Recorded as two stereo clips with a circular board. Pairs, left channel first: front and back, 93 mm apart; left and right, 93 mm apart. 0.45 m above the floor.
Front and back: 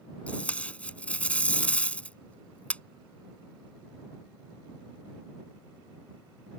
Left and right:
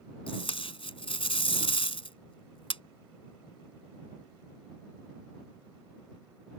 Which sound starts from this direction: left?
Tape being pulled, at 0.3 s.